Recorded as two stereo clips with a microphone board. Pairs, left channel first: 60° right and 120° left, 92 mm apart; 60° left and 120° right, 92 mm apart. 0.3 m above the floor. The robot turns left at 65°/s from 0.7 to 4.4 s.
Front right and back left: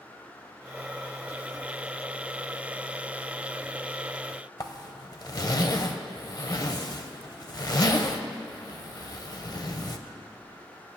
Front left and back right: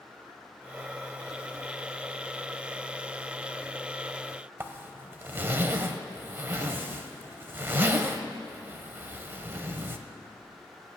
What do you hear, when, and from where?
4.6 s a zipper: 65° right, 0.6 m